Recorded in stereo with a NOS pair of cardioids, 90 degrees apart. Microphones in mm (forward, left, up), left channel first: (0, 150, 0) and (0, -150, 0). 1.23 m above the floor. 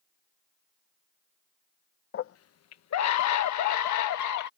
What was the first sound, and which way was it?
A scream, 45° left.